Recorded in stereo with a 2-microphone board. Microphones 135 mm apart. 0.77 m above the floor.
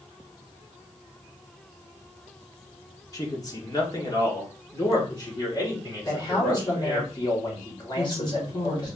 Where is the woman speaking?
35° left (ahead or behind), 2 m.